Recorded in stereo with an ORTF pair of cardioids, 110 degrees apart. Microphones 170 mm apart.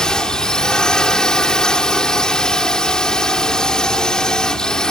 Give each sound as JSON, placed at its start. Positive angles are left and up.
{"t": 0.0, "sound": "a drone", "azimuth_deg": 5}